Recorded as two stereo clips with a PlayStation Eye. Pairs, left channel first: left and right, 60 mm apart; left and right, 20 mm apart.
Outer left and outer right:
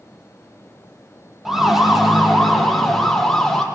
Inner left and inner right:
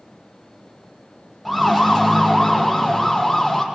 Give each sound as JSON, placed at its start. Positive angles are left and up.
{"t": 1.4, "sound": "a siren", "side_deg": -5, "distance_m": 5.5}